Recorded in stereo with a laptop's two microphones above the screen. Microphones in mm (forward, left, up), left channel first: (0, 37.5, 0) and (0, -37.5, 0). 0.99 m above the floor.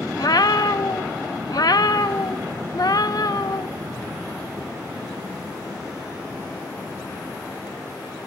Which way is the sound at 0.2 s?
55° left (ahead or behind).